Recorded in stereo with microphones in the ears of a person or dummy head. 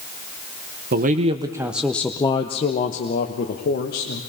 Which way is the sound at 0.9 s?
40° right (ahead or behind).